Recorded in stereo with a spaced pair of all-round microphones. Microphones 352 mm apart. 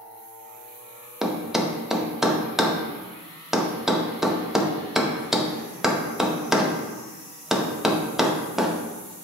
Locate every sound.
1.2 s a thud: centre (ahead or behind), 0.6 m